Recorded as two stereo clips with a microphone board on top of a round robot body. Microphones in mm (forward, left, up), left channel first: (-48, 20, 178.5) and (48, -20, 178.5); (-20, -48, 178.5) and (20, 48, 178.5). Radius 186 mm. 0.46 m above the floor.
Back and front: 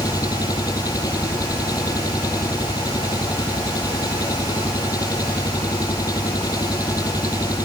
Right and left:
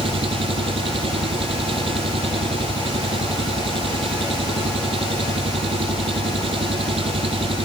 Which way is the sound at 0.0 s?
100° left.